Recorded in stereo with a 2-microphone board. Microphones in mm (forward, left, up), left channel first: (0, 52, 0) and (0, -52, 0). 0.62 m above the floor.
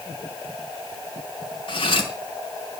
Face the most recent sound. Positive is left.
turn(degrees=55)  # may be behind; listen again after turning